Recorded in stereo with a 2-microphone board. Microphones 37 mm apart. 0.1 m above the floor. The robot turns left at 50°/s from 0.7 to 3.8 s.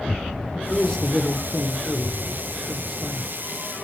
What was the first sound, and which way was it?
A man speaking, 20° left (ahead or behind).